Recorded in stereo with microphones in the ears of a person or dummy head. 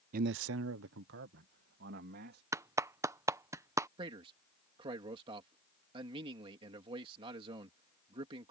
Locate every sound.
0.1 s a man speaking: 50° right (ahead or behind); by 2.4 s 55° right (ahead or behind)
2.5 s a clap: 15° right (ahead or behind)
4.0 s a man speaking: 30° right (ahead or behind)